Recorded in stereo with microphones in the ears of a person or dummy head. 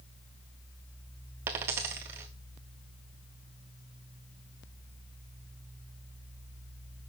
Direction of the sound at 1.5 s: 15° right (ahead or behind).